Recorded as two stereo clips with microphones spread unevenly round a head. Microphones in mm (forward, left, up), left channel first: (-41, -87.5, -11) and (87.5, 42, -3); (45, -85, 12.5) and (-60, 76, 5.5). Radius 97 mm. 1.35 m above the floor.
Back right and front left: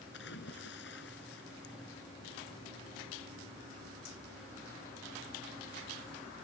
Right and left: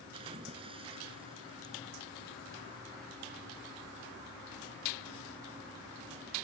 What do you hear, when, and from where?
0.1 s a splash: 175° right